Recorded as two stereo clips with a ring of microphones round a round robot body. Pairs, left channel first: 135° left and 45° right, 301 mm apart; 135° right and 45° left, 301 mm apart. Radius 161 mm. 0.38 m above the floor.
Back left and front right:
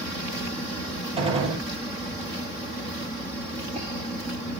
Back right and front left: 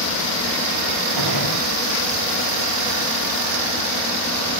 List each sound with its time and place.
1.2 s a gunshot: 25° left, 7.5 m